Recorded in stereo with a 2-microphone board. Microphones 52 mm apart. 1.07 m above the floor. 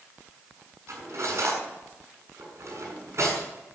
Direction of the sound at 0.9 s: 65° right (ahead or behind).